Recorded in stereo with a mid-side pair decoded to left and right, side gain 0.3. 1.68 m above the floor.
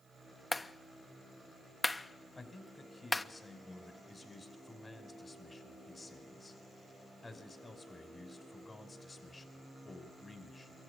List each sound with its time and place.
0.5 s a clap: 30° left, 1.2 m
2.4 s a man speaking: 40° left, 6 m